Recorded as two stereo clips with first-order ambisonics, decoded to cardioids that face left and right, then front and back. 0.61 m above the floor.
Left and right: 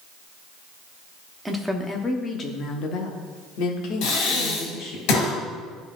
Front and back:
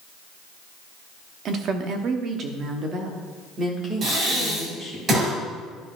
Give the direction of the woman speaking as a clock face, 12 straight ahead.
6 o'clock.